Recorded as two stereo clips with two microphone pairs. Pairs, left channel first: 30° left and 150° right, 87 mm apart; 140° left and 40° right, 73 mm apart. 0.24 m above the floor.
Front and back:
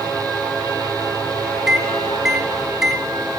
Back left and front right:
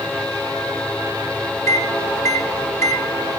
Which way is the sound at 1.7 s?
125° left.